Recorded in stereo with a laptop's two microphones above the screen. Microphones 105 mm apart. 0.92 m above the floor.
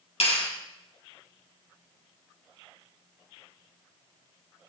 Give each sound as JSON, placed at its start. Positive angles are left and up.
{"t": 0.2, "sound": "a clap", "side_deg": 70, "distance_m": 4.0}